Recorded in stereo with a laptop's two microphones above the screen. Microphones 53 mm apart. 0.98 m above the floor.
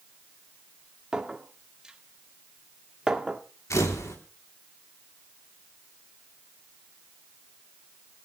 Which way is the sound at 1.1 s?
15° right (ahead or behind).